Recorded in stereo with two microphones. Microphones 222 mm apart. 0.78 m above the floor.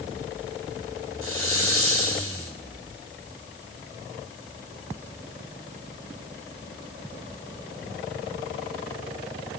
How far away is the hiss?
About 4.5 m.